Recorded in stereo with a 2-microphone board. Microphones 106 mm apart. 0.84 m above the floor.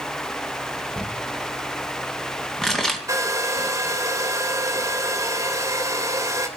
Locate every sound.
1.0 s crumpling: 5° left (ahead or behind), 2.5 m
3.1 s a hair dryer: 30° right (ahead or behind), 3 m